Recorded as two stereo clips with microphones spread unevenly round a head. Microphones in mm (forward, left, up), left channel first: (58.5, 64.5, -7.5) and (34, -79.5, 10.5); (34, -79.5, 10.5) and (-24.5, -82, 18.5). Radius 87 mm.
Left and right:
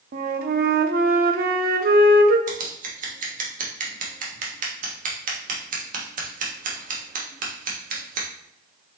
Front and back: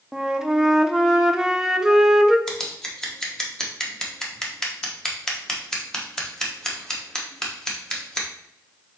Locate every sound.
0.1 s a flute: 100° right, 0.6 m
2.5 s scissors: 80° right, 1.3 m